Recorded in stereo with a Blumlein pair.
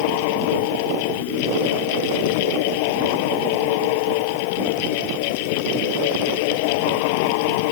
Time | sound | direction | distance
0.0 | a fan | 45° left | ?